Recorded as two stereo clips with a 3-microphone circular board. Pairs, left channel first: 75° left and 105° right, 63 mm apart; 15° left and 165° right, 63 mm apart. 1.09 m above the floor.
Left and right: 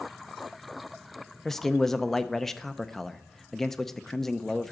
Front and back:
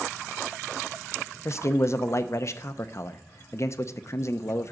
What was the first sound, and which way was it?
A man speaking, 10° right.